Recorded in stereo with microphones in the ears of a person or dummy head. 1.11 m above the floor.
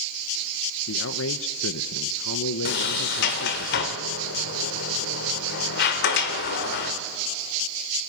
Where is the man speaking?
65° left (ahead or behind), 0.6 m.